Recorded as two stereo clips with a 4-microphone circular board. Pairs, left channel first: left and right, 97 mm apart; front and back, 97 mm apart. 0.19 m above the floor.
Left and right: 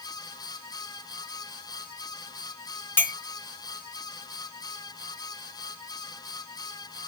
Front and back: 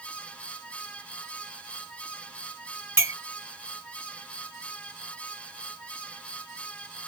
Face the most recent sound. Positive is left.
turn(degrees=135)